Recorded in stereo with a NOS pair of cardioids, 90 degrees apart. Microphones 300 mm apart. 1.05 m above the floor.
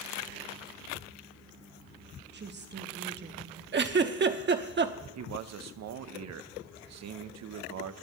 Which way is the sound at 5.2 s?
65° right.